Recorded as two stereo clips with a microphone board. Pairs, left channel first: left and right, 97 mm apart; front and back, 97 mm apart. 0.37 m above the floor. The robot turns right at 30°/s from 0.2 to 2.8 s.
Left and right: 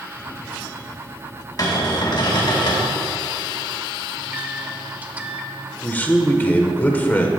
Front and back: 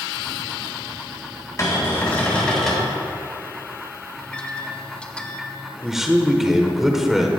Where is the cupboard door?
50° left, 3 m; by 2.9 s 90° left, 3 m.